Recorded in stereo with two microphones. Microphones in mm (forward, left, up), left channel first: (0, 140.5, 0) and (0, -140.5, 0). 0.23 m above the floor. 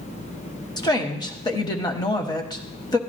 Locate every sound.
0.8 s a woman speaking: 15° left (ahead or behind), 1.1 m